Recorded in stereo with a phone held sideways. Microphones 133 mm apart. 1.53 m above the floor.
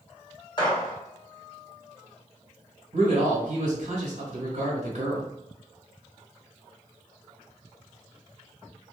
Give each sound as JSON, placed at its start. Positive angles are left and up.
{"t": 0.6, "sound": "a gunshot", "side_deg": 35, "distance_m": 1.2}
{"t": 2.9, "sound": "a man speaking", "side_deg": -60, "distance_m": 1.5}